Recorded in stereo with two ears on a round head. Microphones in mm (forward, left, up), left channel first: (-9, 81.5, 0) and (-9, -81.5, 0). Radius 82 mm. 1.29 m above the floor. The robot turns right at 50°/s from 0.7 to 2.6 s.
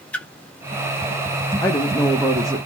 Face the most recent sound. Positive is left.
turn(degrees=-150)